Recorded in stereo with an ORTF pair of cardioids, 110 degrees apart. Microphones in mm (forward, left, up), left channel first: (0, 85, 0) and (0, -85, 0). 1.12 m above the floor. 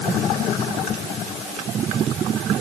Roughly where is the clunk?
I don't hear a clunk.